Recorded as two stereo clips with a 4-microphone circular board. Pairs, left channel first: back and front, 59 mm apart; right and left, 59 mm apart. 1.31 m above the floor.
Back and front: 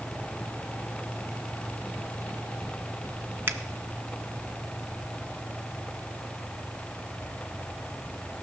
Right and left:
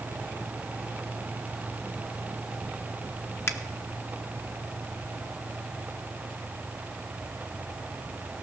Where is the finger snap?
50° right, 0.7 m.